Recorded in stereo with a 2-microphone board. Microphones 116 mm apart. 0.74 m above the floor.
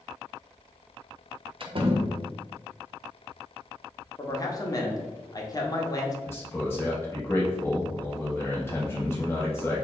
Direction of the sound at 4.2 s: 30° left (ahead or behind).